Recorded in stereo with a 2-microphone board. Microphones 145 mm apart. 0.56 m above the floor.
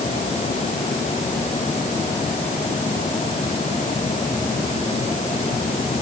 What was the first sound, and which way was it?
Only background noise.